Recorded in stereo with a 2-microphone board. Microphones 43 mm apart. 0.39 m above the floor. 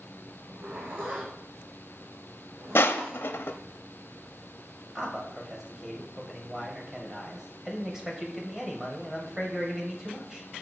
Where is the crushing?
70° left (ahead or behind), 0.6 m.